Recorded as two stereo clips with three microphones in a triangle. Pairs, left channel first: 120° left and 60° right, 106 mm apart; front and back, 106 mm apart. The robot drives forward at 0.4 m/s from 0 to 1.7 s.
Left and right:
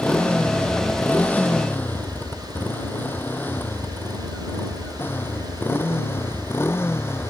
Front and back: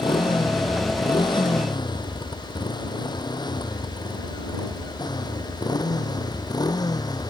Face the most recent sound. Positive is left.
turn(degrees=55)